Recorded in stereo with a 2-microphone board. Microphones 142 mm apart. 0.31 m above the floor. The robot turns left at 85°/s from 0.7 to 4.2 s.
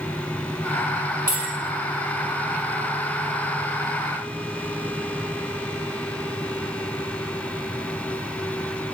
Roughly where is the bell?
Right.